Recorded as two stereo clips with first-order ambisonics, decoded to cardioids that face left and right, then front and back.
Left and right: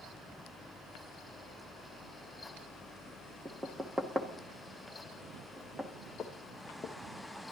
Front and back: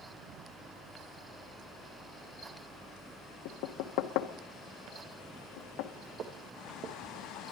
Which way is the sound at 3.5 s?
5° right.